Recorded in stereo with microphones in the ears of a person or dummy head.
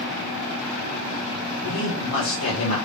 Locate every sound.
1.6 s a man speaking: 65° left (ahead or behind), 1.5 m